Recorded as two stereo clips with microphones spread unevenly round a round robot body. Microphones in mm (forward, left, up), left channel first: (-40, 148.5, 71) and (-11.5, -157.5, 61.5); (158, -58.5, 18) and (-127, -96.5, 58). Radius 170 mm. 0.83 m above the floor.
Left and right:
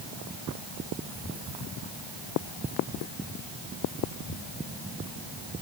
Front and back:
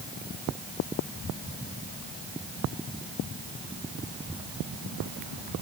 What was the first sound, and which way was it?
Only background noise.